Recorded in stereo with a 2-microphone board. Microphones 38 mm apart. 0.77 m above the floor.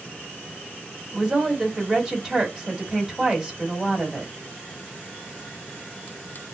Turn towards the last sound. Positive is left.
turn(degrees=-10)  # may be behind; listen again after turning